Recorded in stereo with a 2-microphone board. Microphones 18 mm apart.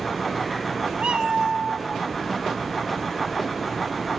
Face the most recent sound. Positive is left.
turn(degrees=-65)  # may be behind; listen again after turning